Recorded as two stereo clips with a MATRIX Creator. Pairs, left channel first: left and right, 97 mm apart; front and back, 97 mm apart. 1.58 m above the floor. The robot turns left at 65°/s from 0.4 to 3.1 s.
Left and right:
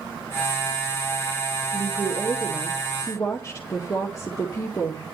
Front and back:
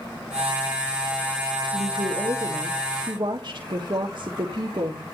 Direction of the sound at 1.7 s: 125° right.